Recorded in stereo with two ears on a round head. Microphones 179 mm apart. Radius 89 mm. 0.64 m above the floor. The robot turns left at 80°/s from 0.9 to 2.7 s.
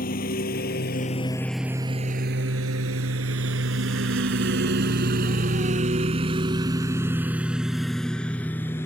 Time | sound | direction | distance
0.0 | a lawn mower | 45° left (ahead or behind) | ?